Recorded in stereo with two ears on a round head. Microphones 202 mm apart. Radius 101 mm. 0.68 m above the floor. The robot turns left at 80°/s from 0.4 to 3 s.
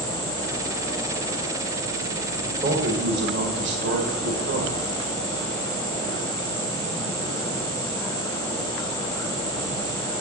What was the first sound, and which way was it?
A man speaking, 10° right.